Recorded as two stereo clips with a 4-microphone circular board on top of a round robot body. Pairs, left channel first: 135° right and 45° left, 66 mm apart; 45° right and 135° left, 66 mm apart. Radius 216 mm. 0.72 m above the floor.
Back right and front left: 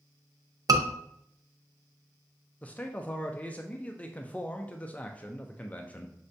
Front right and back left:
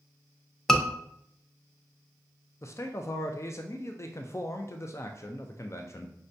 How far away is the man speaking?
About 0.5 m.